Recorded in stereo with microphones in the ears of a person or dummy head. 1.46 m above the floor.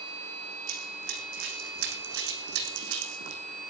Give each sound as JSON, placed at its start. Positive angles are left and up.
{"t": 0.7, "sound": "running footsteps", "side_deg": -65, "distance_m": 5.0}